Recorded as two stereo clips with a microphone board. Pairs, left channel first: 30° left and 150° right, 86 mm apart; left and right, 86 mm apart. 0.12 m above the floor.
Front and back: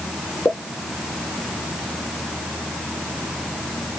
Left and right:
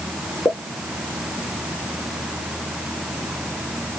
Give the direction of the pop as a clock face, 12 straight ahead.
10 o'clock.